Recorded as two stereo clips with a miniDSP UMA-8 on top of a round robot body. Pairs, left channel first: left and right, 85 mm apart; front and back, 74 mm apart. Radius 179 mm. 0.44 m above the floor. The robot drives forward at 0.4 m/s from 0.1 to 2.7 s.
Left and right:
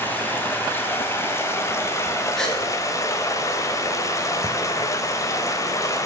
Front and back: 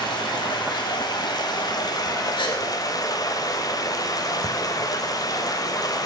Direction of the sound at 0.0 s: 25° left.